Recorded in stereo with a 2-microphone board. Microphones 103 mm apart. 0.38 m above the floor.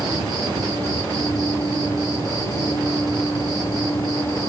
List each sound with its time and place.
0.0 s an insect: 40° right (ahead or behind), 1.8 m